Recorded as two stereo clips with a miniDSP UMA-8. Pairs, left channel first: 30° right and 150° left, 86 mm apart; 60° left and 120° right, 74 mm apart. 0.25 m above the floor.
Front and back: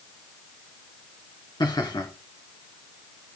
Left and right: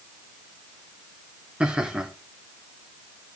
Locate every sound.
1.6 s laughter: 45° right, 3 m